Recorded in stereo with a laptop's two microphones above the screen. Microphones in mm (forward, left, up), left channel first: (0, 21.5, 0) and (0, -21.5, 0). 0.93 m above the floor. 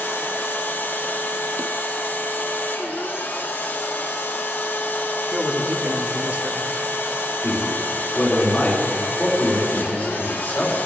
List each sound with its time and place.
0.0 s a machine running: 50° left (ahead or behind), 0.8 m
5.3 s a man speaking: 30° right (ahead or behind), 1.2 m
7.4 s a man speaking: 25° left (ahead or behind), 3 m